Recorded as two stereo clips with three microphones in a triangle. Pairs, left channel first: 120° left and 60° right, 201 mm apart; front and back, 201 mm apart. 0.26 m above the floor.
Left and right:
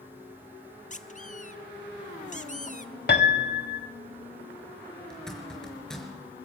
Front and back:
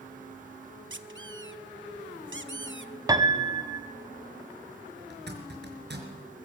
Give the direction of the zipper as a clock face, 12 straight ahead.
5 o'clock.